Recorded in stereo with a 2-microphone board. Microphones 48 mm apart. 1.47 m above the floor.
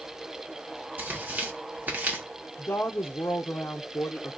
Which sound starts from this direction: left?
A woman speaking, at 2.6 s.